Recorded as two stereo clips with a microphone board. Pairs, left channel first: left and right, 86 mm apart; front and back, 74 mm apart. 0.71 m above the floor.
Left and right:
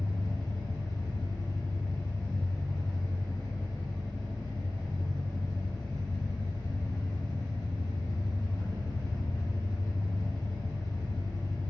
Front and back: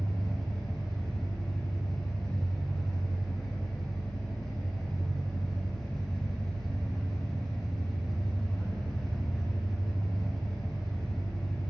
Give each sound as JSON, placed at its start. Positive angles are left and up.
{"t": 0.0, "sound": "an engine running", "azimuth_deg": 80, "distance_m": 0.8}